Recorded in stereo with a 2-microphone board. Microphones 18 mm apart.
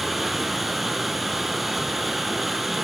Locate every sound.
0.0 s running water: 10° right (ahead or behind), 4.5 m